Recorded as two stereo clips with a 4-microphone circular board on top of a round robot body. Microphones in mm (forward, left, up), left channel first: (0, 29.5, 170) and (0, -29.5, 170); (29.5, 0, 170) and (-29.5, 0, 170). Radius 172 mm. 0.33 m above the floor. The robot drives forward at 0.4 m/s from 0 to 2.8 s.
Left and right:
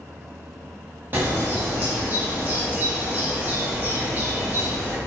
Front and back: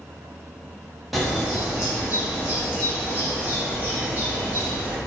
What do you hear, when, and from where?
1.1 s a bird: 90° right, 1.3 m; by 5.0 s 135° right, 1.5 m